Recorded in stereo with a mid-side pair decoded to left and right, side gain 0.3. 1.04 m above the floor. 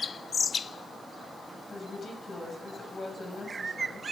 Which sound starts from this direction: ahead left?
A woman speaking, at 1.7 s.